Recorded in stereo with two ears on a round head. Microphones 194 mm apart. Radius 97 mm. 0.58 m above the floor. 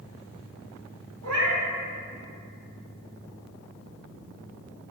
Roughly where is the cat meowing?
Right.